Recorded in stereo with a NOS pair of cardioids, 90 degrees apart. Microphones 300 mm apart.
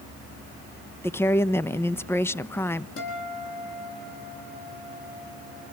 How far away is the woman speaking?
About 0.8 m.